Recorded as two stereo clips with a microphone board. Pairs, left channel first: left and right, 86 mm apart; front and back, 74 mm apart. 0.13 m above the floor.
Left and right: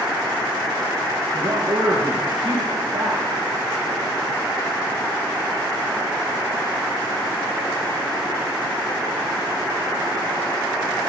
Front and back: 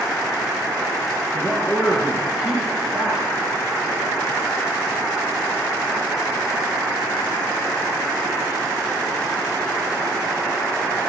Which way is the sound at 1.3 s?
95° right.